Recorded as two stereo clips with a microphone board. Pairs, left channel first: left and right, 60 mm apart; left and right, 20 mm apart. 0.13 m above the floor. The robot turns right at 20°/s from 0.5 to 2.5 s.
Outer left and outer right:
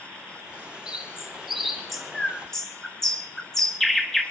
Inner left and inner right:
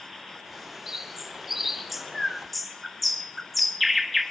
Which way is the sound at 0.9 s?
15° right (ahead or behind).